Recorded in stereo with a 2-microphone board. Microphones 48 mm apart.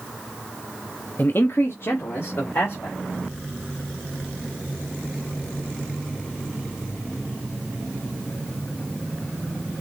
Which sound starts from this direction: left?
A man speaking, at 1.2 s.